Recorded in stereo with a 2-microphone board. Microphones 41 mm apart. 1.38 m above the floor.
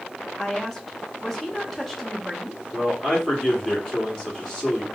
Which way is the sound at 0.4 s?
5° left (ahead or behind).